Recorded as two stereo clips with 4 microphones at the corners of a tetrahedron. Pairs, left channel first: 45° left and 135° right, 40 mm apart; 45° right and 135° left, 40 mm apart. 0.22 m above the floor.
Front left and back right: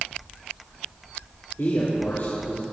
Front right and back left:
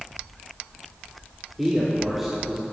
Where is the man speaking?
50° left, 4 m; by 2.6 s 55° left, 5 m.